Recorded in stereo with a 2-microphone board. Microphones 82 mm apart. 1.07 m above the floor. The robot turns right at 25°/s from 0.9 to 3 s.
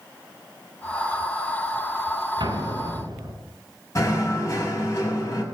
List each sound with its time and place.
2.4 s an explosion: 65° right (ahead or behind), 5.5 m; by 3.3 s 50° right (ahead or behind), 5.5 m
4.0 s knocking: 40° left (ahead or behind), 6 m